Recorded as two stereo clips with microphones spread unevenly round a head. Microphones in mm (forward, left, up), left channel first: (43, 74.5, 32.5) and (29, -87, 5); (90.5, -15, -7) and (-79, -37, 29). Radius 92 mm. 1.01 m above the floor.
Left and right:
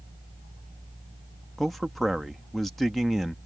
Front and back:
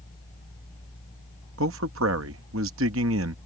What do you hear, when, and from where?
1.6 s a man speaking: straight behind